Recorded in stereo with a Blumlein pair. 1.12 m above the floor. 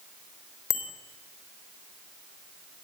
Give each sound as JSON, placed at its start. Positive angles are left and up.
{"t": 0.7, "sound": "a bicycle bell", "azimuth_deg": 30, "distance_m": 3.5}